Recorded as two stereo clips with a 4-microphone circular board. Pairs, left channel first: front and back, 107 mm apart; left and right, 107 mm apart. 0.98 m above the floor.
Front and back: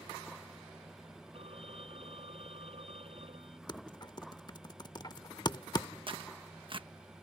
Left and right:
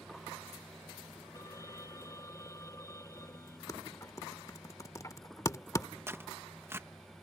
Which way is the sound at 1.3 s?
150° left.